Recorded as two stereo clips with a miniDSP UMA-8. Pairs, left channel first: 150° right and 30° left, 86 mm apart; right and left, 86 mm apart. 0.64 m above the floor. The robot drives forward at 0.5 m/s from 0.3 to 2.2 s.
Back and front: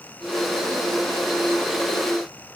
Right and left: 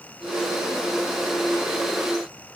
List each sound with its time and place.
Only background noise.